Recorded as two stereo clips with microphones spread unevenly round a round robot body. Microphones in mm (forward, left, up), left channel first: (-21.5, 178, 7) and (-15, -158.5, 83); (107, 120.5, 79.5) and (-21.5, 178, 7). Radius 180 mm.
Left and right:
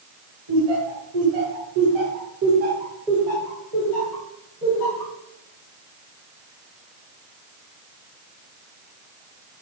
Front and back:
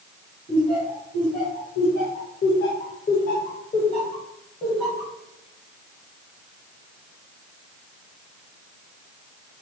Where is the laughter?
95° right, 2.5 m; by 5.1 s 45° left, 3 m.